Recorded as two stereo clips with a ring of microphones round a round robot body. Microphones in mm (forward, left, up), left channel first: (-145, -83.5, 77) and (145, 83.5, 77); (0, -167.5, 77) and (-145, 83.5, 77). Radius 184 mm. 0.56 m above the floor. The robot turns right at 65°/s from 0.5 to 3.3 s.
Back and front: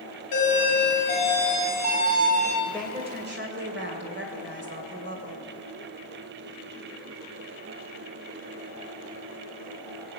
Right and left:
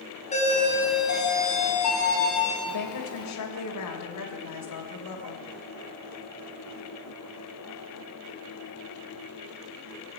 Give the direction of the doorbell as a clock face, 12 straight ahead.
4 o'clock.